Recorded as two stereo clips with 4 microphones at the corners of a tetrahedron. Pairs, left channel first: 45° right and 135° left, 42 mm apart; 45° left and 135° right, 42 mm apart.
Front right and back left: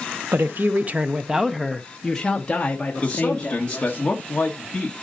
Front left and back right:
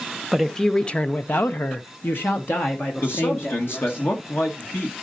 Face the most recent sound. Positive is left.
turn(degrees=20)